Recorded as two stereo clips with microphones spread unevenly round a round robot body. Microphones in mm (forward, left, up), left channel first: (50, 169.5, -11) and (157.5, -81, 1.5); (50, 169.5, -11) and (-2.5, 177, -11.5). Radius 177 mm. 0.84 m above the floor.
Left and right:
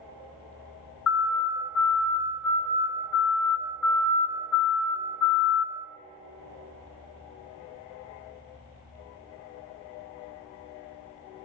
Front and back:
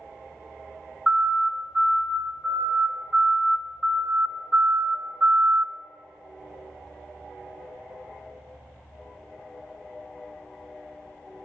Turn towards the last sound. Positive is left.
turn(degrees=125)